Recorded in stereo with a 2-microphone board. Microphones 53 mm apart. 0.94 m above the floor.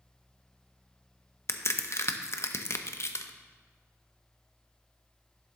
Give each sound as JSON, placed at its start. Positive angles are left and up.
{"t": 1.5, "sound": "a crack", "side_deg": 55, "distance_m": 0.5}